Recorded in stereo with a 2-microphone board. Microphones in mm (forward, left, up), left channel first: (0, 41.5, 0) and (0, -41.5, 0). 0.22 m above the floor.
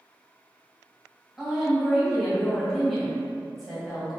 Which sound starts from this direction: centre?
A woman speaking, at 1.4 s.